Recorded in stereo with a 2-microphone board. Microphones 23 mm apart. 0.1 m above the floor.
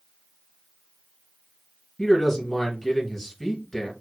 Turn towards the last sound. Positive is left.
turn(degrees=10)  # may be behind; listen again after turning